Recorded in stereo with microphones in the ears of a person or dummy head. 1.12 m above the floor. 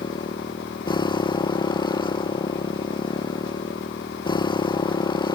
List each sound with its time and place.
0.0 s a motorcycle: 25° left (ahead or behind)